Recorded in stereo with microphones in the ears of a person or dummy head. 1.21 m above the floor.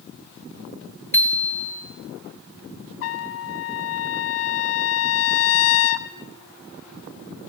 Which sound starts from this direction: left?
A trumpet, at 3.0 s.